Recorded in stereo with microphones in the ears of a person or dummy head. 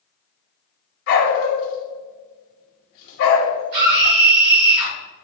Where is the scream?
60° right (ahead or behind), 2.0 m.